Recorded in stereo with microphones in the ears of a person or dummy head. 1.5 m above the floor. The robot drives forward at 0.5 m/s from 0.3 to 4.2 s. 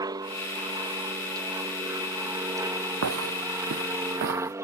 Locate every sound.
0.0 s an aircraft: 15° right (ahead or behind); by 4.6 s 10° right (ahead or behind)
3.0 s footsteps: 70° right (ahead or behind); by 4.5 s 50° right (ahead or behind)